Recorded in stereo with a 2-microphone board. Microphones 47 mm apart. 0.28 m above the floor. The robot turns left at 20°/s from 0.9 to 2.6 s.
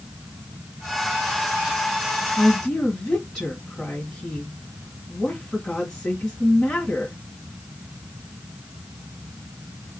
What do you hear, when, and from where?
2.4 s a woman speaking: 10° left (ahead or behind), 2 m; by 7.2 s 15° left (ahead or behind), 2 m